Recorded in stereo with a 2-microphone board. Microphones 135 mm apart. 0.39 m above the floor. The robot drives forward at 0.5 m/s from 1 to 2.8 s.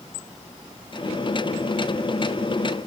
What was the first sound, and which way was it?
Only background noise.